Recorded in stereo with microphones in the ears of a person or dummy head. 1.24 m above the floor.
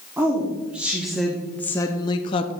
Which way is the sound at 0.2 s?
5° right (ahead or behind).